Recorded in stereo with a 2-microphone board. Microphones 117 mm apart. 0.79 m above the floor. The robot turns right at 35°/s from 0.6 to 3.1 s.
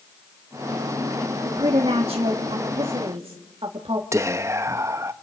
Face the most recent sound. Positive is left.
turn(degrees=-25)  # may be behind; listen again after turning